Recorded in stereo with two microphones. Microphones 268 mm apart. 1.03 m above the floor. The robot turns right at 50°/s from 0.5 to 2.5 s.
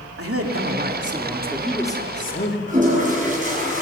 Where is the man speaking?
55° right, 3 m; by 2.6 s 45° left, 3 m.